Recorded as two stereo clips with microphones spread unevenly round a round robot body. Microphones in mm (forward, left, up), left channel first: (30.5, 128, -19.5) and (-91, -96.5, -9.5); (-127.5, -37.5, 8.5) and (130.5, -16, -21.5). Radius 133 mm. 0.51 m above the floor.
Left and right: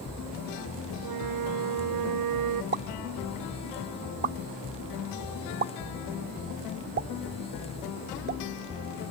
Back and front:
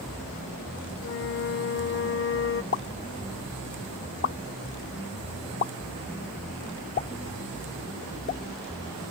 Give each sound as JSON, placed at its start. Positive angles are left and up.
{"t": 1.0, "sound": "a flute", "azimuth_deg": -125}
{"t": 2.7, "sound": "a pop", "azimuth_deg": -140}